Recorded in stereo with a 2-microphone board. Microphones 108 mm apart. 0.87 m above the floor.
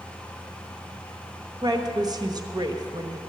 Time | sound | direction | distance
1.6 | a woman speaking | 40° right (ahead or behind) | 1.1 m